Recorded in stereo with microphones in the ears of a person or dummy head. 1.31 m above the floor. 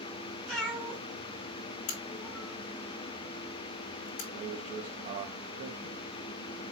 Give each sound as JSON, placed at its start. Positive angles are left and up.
{"t": 0.5, "sound": "a cat meowing", "side_deg": 5, "distance_m": 2.0}
{"t": 1.9, "sound": "a crack", "side_deg": 50, "distance_m": 1.2}
{"t": 4.3, "sound": "a man speaking", "side_deg": -30, "distance_m": 1.0}